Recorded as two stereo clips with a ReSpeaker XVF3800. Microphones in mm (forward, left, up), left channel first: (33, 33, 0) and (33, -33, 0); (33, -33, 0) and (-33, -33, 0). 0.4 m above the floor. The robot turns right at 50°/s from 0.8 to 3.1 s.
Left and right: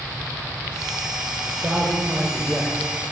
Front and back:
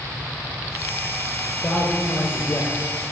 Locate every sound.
1.5 s a man speaking: 50° right, 1.3 m; by 2.9 s 25° left, 1.3 m